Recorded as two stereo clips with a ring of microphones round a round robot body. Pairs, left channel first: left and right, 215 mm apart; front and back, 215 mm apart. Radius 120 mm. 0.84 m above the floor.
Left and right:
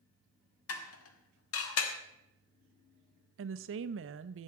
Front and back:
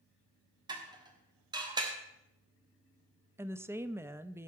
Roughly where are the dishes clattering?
Left.